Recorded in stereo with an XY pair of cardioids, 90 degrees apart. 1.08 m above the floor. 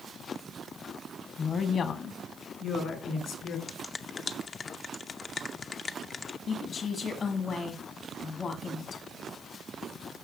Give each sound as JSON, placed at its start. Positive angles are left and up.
{"t": 1.4, "sound": "a woman speaking", "azimuth_deg": 50, "distance_m": 1.1}
{"t": 3.7, "sound": "a finger snap", "azimuth_deg": 45, "distance_m": 0.6}
{"t": 6.5, "sound": "a woman speaking", "azimuth_deg": 65, "distance_m": 1.8}